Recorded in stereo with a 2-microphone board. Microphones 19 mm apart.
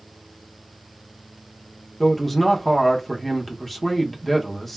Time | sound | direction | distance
2.0 | a man speaking | 15° left (ahead or behind) | 0.7 m